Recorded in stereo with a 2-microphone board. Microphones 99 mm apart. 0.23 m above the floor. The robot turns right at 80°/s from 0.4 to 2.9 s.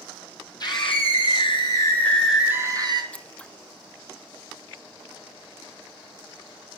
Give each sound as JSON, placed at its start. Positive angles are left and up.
{"t": 0.6, "sound": "a scream", "azimuth_deg": 45, "distance_m": 3.5}
{"t": 3.1, "sound": "scissors", "side_deg": 10, "distance_m": 0.6}